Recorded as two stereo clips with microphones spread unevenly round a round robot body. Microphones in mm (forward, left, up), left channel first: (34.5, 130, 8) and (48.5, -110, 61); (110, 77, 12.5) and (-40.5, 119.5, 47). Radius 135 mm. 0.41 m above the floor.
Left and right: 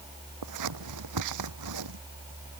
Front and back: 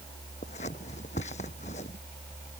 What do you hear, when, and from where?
0.4 s scissors: 80° right